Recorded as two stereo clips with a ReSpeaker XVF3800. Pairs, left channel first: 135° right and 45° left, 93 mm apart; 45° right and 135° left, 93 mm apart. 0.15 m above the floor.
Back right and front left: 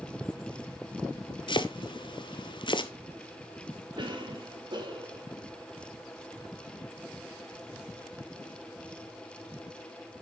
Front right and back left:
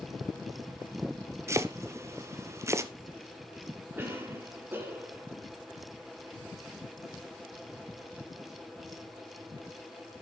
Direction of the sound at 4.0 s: 70° left.